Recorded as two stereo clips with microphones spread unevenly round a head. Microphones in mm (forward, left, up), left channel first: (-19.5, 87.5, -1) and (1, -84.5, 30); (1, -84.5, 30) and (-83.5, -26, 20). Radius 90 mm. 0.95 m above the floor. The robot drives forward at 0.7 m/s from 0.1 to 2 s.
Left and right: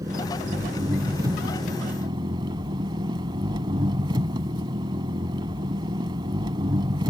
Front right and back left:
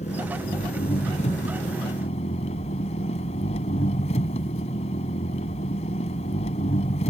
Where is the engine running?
15° right; by 7.1 s 20° right.